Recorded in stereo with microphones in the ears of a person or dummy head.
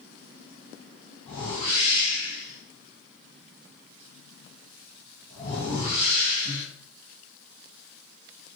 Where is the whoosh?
35° left (ahead or behind), 1.5 m.